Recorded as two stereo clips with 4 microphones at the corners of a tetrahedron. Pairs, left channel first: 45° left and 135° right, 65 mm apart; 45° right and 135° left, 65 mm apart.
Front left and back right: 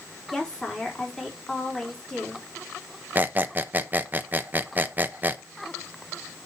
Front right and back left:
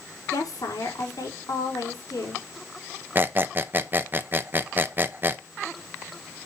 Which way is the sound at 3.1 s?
Straight behind.